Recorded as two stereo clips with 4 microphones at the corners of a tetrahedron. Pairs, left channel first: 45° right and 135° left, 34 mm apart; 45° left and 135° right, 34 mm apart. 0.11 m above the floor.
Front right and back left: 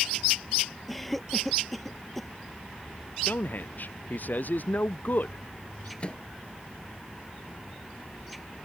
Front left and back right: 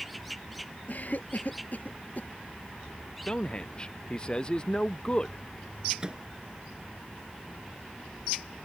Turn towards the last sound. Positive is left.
turn(degrees=-80)